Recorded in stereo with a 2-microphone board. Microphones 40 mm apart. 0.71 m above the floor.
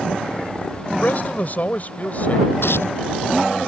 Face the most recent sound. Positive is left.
turn(degrees=90)